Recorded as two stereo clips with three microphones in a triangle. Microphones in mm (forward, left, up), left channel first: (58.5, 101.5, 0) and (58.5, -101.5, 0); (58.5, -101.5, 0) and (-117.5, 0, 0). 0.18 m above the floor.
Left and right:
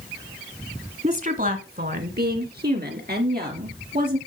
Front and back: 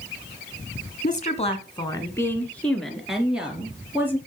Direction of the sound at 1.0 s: 55° right.